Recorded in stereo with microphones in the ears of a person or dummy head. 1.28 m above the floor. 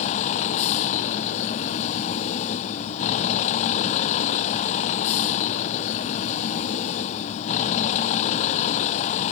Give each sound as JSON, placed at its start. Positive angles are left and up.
{"t": 0.0, "sound": "a vehicle", "side_deg": 40}